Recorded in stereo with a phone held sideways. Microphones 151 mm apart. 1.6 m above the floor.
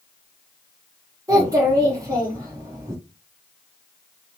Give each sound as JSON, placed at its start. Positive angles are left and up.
{"t": 1.3, "sound": "a child speaking", "side_deg": -25, "distance_m": 0.7}